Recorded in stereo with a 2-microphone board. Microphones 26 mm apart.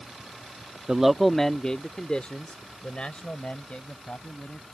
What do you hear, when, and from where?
0.9 s a man speaking: 25° right (ahead or behind); by 4.6 s 60° left (ahead or behind)